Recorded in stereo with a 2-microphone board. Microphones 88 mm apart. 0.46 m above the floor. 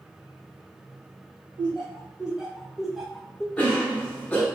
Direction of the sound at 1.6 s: 10° right (ahead or behind).